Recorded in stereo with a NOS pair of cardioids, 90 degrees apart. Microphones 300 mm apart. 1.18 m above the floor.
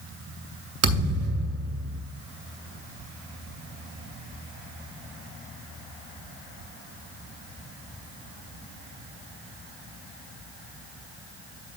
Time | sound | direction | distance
0.8 | a thud | 55° right | 2.5 m